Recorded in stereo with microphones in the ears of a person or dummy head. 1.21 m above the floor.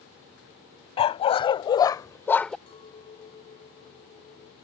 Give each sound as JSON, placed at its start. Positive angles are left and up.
{"t": 1.0, "sound": "a dog barking", "side_deg": 30}
{"t": 2.7, "sound": "a clink", "side_deg": 30}